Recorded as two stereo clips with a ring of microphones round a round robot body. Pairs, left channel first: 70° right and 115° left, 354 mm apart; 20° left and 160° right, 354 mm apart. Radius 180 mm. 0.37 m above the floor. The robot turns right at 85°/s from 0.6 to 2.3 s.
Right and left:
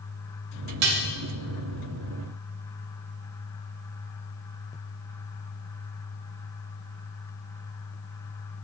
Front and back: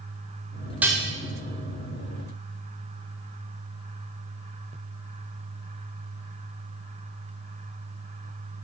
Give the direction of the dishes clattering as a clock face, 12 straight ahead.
8 o'clock.